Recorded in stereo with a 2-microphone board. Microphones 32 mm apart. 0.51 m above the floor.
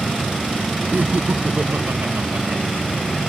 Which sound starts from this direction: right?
Laughter, at 0.9 s.